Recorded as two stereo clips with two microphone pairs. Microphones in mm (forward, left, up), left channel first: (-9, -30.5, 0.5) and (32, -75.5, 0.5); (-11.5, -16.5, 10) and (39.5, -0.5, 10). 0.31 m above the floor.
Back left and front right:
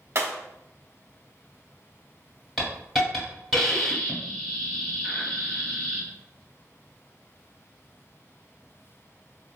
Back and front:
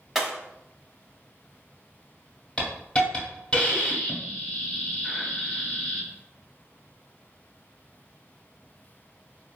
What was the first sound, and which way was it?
Breaking glass, 65° right.